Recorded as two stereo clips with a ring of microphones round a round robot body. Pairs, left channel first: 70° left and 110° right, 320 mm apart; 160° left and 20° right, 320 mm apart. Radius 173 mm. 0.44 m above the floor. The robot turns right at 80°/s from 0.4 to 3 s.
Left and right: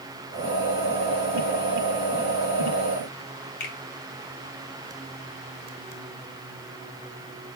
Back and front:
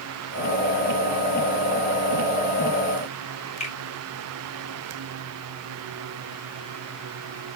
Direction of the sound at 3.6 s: 90° left.